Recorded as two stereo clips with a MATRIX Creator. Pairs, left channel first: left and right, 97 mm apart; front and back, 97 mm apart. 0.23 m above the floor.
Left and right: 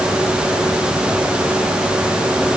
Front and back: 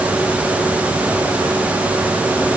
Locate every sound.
Only background noise.